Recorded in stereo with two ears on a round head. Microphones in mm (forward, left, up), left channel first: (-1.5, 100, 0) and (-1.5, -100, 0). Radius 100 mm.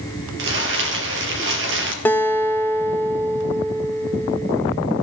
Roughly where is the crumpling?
Right.